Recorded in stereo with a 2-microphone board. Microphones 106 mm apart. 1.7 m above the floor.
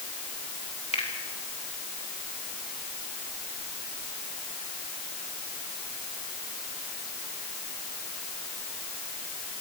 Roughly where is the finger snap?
Left.